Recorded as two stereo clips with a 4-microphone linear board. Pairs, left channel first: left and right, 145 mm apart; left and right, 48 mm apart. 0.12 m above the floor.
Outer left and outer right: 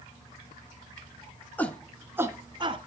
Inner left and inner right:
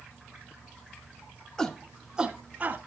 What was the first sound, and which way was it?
A shout, 15° left (ahead or behind).